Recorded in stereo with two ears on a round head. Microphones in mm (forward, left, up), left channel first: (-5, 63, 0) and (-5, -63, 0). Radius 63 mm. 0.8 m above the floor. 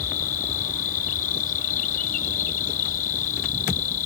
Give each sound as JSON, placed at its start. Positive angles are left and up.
{"t": 0.0, "sound": "an insect", "side_deg": 70}